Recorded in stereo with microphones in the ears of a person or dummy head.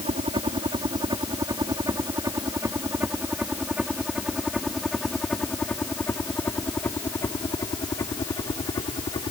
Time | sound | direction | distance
0.0 | a helicopter | 25° right (ahead or behind) | ?